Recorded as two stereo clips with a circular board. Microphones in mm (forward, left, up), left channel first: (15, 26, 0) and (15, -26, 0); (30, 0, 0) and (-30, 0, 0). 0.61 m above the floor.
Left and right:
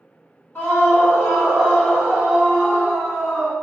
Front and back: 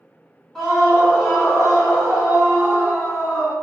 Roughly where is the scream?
Left.